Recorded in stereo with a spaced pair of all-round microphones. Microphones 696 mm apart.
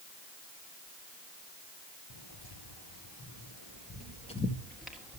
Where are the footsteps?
40° left (ahead or behind), 2 m; by 5.2 s 5° right (ahead or behind), 1.9 m.